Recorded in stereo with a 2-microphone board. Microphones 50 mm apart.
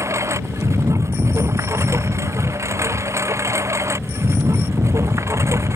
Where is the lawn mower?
70° right (ahead or behind).